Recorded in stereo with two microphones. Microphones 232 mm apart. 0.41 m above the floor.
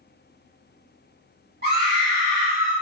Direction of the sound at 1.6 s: 45° right (ahead or behind).